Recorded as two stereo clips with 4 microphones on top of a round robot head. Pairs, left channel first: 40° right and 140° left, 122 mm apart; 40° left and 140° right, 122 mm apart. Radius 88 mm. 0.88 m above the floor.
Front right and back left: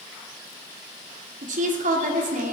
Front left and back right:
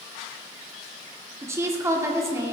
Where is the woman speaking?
150° left, 1.7 m.